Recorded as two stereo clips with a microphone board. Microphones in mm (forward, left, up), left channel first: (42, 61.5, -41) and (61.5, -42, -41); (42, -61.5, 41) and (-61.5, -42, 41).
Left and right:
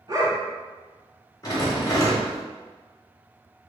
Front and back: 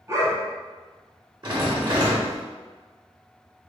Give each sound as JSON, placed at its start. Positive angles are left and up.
{"t": 0.1, "sound": "a dog barking", "azimuth_deg": -130, "distance_m": 1.1}
{"t": 1.4, "sound": "a rattle", "azimuth_deg": 140, "distance_m": 0.9}